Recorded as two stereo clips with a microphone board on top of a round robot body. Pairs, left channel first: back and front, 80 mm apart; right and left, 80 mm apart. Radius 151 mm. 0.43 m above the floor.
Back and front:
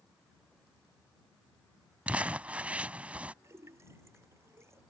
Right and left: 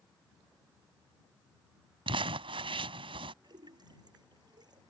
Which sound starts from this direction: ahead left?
A splash, at 3.4 s.